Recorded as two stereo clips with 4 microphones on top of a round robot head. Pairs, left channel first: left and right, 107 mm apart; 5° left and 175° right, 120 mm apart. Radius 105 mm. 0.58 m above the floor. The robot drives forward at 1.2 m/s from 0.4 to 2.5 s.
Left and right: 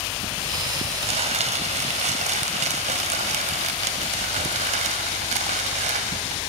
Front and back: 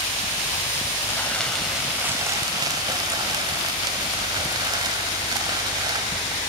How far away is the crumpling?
About 2.5 m.